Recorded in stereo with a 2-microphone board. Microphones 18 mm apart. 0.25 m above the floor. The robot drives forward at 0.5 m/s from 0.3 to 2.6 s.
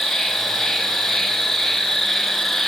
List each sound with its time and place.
0.0 s an insect: centre (ahead or behind), 2.5 m; by 2.7 s 5° left (ahead or behind), 1.4 m